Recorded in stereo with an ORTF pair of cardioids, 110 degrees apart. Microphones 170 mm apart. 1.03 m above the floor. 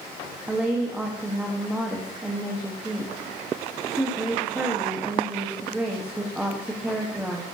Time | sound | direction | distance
0.5 | a woman speaking | 5° right | 1.3 m